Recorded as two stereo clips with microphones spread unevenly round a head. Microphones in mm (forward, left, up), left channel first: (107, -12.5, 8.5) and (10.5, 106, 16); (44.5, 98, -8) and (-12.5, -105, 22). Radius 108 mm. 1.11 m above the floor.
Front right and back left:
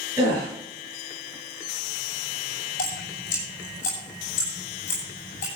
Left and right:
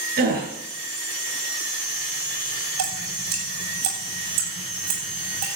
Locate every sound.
0.2 s a gasp: 155° right, 6 m
2.8 s dripping: 105° right, 8 m